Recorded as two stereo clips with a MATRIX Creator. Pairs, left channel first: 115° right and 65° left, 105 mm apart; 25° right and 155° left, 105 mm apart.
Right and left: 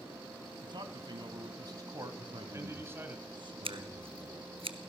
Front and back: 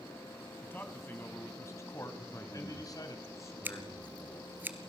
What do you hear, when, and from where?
0.6 s a man speaking: 45° left, 2.5 m; by 3.2 s 5° left, 1.9 m
2.2 s a man speaking: 35° left, 4 m
3.6 s scissors: 90° left, 1.2 m